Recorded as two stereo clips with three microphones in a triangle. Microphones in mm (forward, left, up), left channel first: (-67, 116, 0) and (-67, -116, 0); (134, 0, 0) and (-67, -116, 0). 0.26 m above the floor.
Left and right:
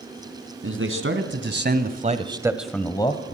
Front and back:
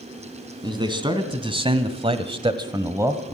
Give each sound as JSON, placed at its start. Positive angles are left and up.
{"t": 0.6, "sound": "a man speaking", "azimuth_deg": -80, "distance_m": 2.5}